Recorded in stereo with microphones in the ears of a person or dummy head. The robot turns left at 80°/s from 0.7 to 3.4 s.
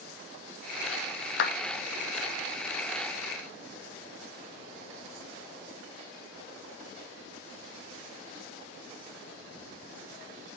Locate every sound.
1.4 s a clap: 65° left (ahead or behind), 1.0 m; by 1.5 s 60° left (ahead or behind), 1.0 m